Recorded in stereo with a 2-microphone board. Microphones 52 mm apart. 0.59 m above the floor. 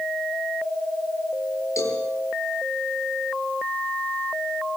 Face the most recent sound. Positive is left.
turn(degrees=75)  # may be behind; listen again after turning